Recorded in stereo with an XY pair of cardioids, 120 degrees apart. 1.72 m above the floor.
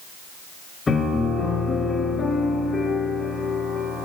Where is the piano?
30° left, 7.5 m.